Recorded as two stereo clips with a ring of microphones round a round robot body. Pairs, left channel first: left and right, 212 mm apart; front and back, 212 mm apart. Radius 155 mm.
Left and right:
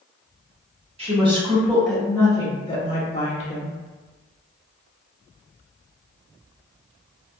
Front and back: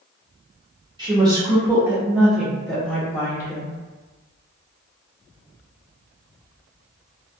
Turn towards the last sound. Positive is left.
turn(degrees=75)